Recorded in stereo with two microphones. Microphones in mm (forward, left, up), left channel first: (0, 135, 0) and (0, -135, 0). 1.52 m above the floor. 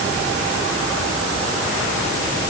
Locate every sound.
Only background noise.